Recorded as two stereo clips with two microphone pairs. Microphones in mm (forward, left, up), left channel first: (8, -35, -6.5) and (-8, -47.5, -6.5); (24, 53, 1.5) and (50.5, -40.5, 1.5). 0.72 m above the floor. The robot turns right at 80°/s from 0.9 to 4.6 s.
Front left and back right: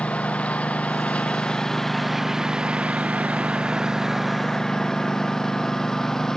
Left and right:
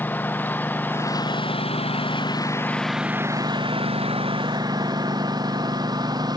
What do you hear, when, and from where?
0.0 s a lawn mower: 35° left; by 6.4 s 30° right